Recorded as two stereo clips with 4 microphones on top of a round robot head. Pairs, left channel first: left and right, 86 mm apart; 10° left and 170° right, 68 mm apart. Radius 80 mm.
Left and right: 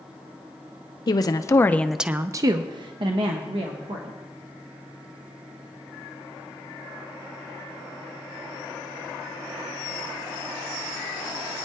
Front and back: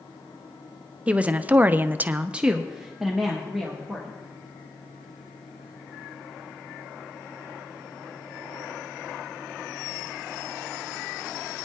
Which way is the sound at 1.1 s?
120° left.